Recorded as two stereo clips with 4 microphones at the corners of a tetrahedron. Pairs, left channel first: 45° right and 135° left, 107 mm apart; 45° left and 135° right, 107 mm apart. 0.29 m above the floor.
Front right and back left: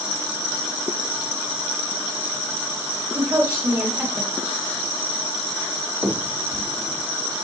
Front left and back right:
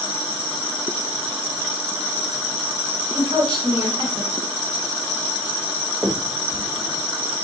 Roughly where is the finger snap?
Behind.